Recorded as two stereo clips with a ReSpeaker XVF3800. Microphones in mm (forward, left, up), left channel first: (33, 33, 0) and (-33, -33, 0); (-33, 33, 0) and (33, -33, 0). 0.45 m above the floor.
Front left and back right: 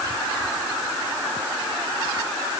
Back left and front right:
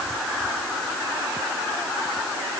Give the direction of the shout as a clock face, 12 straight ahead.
I don't hear a shout.